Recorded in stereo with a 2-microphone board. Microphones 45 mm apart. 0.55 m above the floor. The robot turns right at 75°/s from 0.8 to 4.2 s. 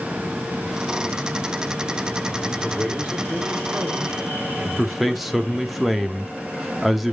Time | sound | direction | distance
2.5 | a man speaking | 165° left | 1.7 m
4.8 | a man speaking | 5° right (ahead or behind) | 0.8 m